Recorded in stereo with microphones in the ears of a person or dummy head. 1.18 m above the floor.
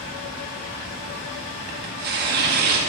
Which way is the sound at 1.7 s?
55° right (ahead or behind).